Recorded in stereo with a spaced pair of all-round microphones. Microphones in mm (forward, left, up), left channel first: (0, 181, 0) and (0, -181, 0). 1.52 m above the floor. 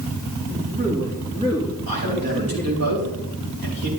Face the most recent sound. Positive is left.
turn(degrees=-75)  # may be behind; listen again after turning